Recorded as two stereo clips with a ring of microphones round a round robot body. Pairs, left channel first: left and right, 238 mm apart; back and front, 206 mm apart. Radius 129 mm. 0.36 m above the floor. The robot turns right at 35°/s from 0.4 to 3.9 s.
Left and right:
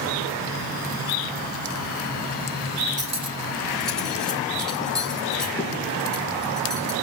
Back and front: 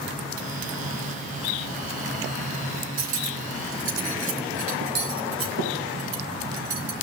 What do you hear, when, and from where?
3.0 s cutlery clinking: 30° right, 3 m; by 6.9 s 5° left, 3 m